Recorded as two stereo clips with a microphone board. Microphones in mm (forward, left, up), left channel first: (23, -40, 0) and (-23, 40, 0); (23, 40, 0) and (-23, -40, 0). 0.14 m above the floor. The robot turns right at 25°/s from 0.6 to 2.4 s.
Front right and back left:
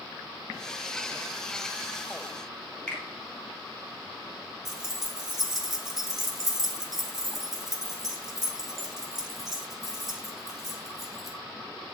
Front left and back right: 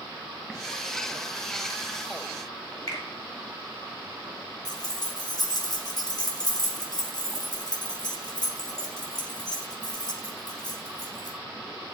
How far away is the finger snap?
About 2 m.